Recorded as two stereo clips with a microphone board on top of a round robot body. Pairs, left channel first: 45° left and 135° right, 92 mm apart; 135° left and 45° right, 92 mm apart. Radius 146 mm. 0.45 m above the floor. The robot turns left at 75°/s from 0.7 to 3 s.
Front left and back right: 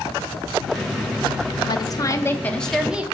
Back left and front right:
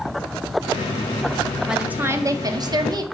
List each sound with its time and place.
1.7 s a woman speaking: 35° left, 1.0 m; by 3.0 s 60° right, 1.0 m